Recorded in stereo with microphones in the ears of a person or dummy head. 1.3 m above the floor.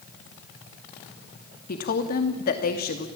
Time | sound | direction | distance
1.7 | a woman speaking | 50° left (ahead or behind) | 2.5 m